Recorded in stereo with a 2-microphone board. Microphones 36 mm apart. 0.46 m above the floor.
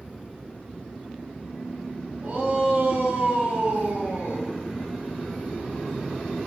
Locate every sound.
2.2 s a shout: 65° right (ahead or behind), 6 m; by 4.5 s 70° right (ahead or behind), 4 m